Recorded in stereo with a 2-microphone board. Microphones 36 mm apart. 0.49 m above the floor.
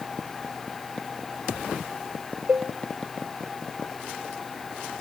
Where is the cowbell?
45° right (ahead or behind), 1.3 m.